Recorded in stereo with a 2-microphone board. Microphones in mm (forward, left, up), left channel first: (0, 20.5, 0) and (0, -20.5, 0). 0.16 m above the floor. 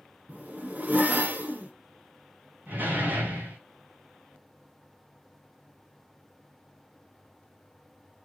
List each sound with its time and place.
0.3 s a zipper: 45° right (ahead or behind), 1.7 m
2.7 s a door slam: 50° right (ahead or behind), 6 m